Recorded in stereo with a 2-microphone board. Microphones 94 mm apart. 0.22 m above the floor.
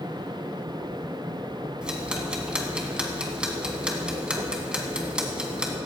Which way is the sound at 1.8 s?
10° right (ahead or behind).